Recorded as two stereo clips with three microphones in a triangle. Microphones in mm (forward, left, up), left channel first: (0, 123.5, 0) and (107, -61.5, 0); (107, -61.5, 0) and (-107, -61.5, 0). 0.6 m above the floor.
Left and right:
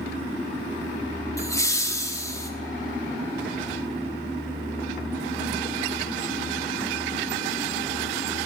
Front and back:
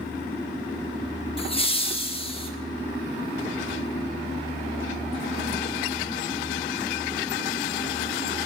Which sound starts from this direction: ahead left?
Laughter, at 1.4 s.